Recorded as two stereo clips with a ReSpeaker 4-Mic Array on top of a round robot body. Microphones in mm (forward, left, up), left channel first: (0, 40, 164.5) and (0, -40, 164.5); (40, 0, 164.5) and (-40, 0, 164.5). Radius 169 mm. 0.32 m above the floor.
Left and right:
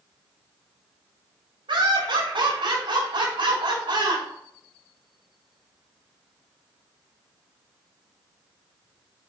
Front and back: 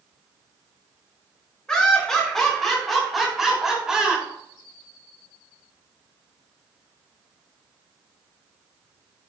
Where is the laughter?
85° right, 6.5 m; by 4.2 s 100° right, 4.5 m.